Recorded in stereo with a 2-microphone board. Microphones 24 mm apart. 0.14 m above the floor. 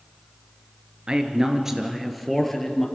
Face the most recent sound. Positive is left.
turn(degrees=15)  # may be behind; listen again after turning